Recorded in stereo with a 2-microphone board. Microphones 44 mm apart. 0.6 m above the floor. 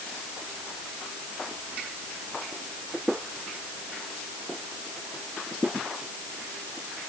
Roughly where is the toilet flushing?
No toilet flushing in this recording.